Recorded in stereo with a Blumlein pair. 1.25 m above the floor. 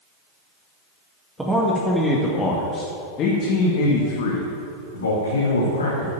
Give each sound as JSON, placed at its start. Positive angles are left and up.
{"t": 1.4, "sound": "a man speaking", "azimuth_deg": -10, "distance_m": 2.0}